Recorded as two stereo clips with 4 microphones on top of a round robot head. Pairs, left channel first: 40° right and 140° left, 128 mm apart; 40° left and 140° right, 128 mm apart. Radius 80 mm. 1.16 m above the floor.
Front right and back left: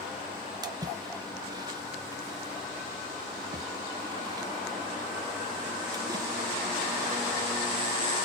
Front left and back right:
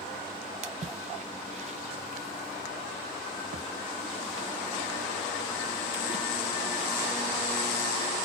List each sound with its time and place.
0.6 s a splash: 165° right, 0.6 m